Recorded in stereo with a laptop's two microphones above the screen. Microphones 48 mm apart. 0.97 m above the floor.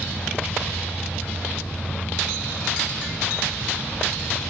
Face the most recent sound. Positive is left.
turn(degrees=25)  # may be behind; listen again after turning